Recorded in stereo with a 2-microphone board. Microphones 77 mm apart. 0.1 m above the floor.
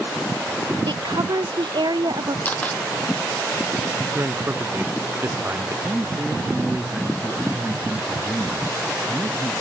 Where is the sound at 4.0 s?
30° right (ahead or behind).